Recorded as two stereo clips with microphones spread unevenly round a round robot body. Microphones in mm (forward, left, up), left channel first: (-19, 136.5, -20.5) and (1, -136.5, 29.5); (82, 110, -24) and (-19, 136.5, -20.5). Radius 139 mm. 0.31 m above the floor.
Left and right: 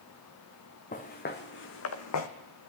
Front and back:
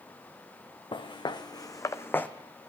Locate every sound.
0.9 s footsteps: 30° left, 1.4 m; by 2.3 s 65° left, 0.9 m